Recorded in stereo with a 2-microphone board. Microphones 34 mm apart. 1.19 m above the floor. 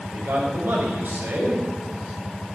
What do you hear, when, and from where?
0.1 s a man speaking: 80° right, 5 m